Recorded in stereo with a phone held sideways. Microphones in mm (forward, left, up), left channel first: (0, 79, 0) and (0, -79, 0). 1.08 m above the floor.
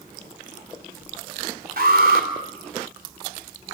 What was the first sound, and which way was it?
An alarm, 70° right (ahead or behind).